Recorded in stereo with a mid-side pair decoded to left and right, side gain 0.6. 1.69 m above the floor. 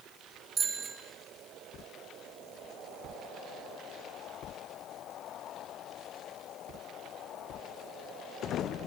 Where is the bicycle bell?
50° right, 5.5 m.